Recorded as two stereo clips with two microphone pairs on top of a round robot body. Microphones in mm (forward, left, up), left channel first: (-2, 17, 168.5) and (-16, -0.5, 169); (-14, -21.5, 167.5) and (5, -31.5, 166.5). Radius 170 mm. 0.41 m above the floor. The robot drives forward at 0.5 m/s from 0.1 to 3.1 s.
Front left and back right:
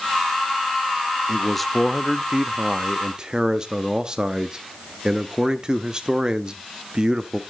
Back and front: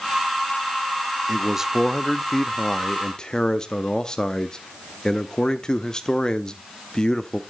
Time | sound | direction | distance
1.3 | a man speaking | 15° right | 0.9 m